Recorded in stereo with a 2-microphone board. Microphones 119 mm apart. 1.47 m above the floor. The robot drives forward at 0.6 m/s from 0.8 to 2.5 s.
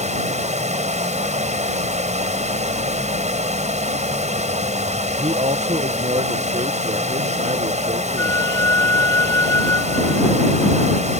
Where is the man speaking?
75° right (ahead or behind).